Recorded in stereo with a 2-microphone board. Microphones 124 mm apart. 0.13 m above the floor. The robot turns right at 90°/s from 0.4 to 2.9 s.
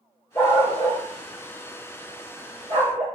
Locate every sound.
0.3 s a dog barking: 30° left (ahead or behind), 2.5 m; by 3.0 s 70° right (ahead or behind), 2.5 m